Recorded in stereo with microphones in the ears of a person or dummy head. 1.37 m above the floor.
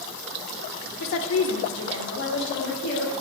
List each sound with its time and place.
1.0 s a woman speaking: 65° left (ahead or behind), 0.8 m; by 3.1 s 55° left (ahead or behind), 1.8 m